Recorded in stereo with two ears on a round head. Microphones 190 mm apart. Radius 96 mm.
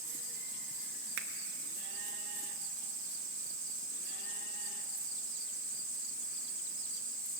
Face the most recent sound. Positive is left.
turn(degrees=-60)  # may be behind; listen again after turning